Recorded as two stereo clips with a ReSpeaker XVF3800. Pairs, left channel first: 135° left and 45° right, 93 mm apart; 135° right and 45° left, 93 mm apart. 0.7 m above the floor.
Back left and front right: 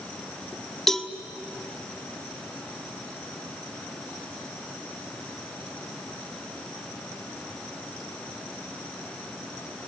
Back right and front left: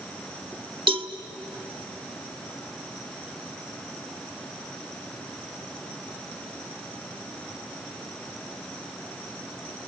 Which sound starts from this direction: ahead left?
A cowbell, at 0.9 s.